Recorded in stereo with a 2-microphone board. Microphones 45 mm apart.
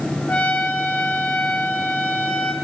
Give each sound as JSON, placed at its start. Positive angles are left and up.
{"t": 0.3, "sound": "a trumpet", "side_deg": 35, "distance_m": 1.5}